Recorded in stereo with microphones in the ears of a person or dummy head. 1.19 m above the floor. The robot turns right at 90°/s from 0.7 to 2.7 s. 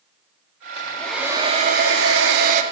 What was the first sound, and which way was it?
A hair dryer, 150° left.